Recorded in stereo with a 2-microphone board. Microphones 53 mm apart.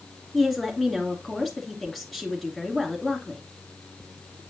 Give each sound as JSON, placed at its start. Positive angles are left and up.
{"t": 0.3, "sound": "a woman speaking", "side_deg": 5, "distance_m": 2.5}